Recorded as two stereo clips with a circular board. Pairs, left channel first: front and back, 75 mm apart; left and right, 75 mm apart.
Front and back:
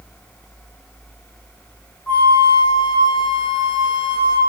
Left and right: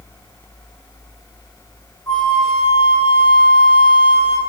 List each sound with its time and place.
2.1 s a flute: 70° left, 2 m